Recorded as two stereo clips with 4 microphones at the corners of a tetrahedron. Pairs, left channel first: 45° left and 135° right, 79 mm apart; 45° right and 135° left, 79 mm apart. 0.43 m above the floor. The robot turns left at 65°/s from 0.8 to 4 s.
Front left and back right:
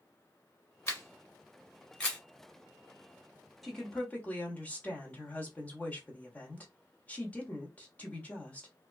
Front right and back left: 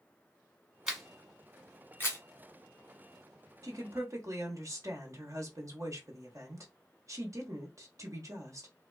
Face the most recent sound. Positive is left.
turn(degrees=110)